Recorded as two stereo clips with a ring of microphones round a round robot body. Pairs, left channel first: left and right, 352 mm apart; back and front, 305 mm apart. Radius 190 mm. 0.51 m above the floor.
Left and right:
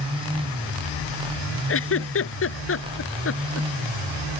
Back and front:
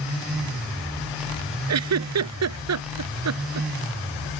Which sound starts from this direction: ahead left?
A giggle, at 1.7 s.